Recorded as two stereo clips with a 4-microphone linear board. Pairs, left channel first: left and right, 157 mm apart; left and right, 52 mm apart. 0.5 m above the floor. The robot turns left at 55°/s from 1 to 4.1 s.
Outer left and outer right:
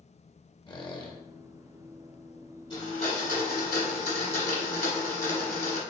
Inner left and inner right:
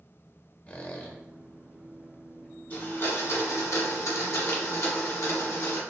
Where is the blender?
150° left, 1.3 m; by 5.8 s 75° left, 1.3 m.